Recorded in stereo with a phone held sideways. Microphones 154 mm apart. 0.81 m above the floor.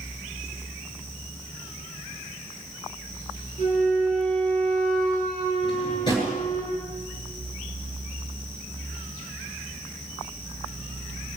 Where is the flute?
60° left (ahead or behind), 8 m.